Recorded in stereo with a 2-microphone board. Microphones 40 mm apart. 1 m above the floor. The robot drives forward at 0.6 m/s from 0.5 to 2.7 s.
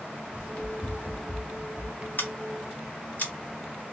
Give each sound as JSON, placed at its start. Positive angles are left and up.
{"t": 0.3, "sound": "running footsteps", "side_deg": 35, "distance_m": 1.7}
{"t": 2.2, "sound": "scissors", "side_deg": 55, "distance_m": 1.0}